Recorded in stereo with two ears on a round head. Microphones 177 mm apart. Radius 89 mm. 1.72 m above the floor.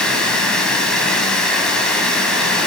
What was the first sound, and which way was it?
Running water, 5° left (ahead or behind).